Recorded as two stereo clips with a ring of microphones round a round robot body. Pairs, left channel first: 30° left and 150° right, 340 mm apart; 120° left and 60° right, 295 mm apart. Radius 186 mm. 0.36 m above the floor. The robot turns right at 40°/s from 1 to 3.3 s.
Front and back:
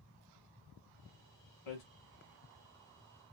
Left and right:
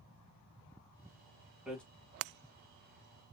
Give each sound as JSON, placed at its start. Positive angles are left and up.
{"t": 1.7, "sound": "hammering", "azimuth_deg": 25, "distance_m": 2.5}